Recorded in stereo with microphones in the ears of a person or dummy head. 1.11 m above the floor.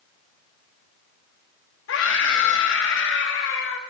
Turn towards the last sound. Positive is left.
turn(degrees=65)  # may be behind; listen again after turning